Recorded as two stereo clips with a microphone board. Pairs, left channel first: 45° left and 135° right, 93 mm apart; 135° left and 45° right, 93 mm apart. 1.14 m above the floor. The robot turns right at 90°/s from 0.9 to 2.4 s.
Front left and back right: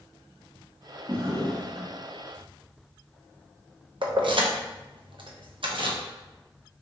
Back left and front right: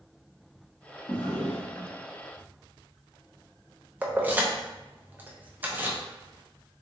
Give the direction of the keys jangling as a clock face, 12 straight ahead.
4 o'clock.